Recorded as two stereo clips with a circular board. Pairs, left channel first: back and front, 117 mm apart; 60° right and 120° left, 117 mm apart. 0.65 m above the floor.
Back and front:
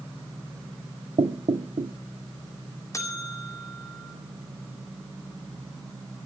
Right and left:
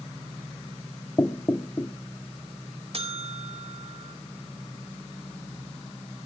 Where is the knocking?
Straight ahead, 0.7 m.